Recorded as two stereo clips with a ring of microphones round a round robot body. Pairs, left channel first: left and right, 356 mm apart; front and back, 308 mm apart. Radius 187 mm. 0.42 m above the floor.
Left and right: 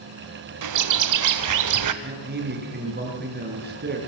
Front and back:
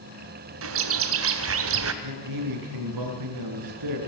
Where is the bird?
130° right, 1.7 m.